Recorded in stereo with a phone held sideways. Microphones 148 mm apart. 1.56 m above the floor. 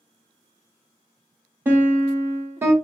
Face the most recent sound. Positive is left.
turn(degrees=-15)  # may be behind; listen again after turning